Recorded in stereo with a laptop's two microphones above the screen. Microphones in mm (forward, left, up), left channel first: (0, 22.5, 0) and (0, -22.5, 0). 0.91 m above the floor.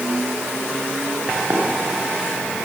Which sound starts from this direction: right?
Running footsteps, at 1.5 s.